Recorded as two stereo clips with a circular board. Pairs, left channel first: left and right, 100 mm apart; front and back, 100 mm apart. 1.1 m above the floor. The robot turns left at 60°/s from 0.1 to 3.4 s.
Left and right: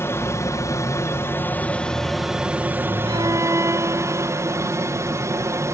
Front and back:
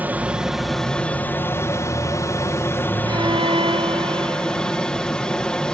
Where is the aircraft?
125° left; by 5.7 s 75° right.